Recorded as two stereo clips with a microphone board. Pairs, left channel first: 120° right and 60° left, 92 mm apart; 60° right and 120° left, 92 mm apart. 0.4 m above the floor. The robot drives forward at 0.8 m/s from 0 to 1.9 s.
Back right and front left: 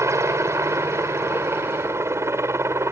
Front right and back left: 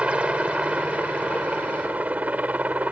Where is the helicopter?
55° left; by 2.9 s 65° left.